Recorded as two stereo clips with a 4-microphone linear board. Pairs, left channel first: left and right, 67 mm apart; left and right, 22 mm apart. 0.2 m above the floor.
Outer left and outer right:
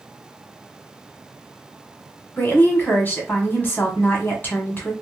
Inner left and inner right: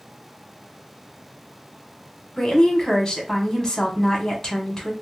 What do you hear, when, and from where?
2.4 s a woman speaking: 30° left (ahead or behind), 1.3 m